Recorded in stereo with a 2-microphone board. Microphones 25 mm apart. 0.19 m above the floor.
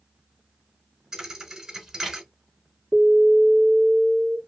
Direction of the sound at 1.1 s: 25° right (ahead or behind).